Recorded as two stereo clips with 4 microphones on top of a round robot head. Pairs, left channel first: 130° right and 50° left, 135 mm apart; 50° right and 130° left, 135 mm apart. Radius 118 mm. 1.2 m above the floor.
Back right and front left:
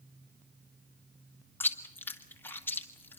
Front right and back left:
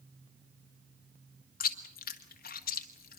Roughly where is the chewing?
Ahead right.